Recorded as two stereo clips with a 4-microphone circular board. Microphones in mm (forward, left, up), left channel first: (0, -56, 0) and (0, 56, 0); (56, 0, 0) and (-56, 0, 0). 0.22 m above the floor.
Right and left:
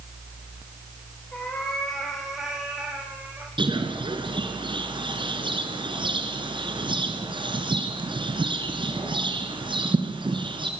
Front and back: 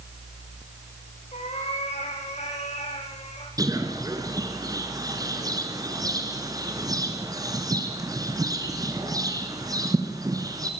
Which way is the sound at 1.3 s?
10° right.